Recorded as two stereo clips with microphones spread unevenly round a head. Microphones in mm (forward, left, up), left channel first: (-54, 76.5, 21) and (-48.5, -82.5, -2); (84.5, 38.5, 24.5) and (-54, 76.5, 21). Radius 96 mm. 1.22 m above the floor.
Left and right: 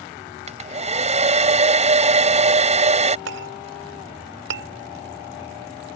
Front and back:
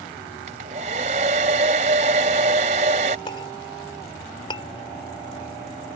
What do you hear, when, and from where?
0.5 s a hair dryer: 140° right
3.3 s a clink: 85° right